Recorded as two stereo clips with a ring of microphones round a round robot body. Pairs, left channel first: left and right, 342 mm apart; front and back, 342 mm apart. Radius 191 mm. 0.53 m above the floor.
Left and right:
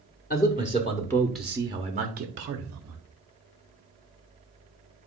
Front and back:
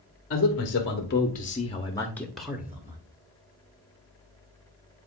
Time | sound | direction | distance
0.3 | a man speaking | 35° left | 1.5 m